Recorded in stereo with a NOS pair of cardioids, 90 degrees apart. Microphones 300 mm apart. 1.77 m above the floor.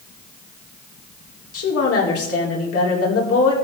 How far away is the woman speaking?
About 4.5 m.